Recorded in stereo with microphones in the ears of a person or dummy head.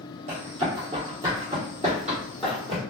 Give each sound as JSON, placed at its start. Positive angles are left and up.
{"t": 0.3, "sound": "running footsteps", "side_deg": -30, "distance_m": 1.3}